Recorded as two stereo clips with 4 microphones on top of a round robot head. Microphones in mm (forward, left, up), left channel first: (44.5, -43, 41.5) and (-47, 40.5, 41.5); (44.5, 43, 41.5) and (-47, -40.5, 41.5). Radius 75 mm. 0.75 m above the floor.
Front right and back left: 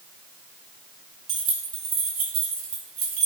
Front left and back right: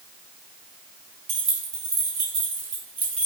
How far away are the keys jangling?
About 2 m.